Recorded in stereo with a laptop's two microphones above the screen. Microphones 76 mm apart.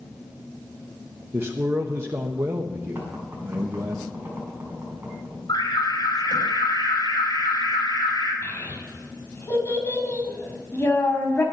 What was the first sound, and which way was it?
A man speaking, 35° right (ahead or behind).